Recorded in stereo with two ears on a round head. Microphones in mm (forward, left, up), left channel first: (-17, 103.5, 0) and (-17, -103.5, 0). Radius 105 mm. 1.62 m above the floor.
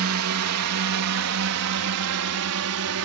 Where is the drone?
65° right (ahead or behind); by 3.0 s 75° right (ahead or behind).